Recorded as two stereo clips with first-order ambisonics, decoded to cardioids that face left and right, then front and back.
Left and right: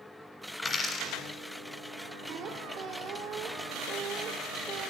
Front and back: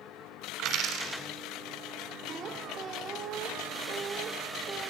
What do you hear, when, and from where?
0.6 s a dropped coin: 155° left, 1.3 m
2.3 s a squeak: 125° right, 0.9 m